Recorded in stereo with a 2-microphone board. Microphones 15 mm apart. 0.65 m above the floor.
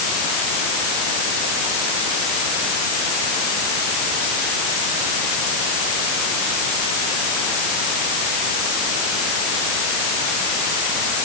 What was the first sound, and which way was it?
Only background noise.